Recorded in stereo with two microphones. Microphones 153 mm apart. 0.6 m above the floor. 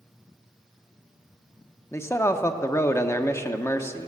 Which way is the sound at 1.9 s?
20° left (ahead or behind).